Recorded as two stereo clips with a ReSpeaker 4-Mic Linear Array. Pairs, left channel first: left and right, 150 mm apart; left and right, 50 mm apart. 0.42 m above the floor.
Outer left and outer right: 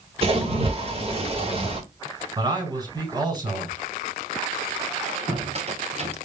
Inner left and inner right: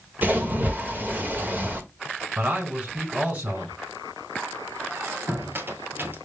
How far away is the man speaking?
About 4.5 m.